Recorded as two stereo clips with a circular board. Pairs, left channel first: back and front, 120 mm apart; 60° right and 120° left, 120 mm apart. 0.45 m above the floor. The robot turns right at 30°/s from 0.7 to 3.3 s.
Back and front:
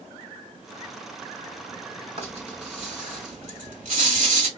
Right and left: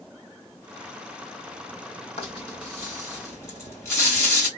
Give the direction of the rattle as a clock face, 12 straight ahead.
1 o'clock.